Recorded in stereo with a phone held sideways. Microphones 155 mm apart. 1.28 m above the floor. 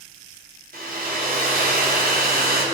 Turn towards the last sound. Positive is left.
turn(degrees=-75)  # may be behind; listen again after turning